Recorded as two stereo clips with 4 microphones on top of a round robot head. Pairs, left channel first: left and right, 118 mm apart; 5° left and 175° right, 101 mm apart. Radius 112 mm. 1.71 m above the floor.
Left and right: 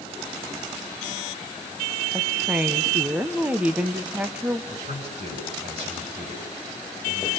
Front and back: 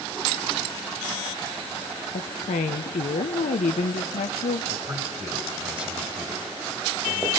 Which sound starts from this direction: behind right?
A man speaking, at 4.7 s.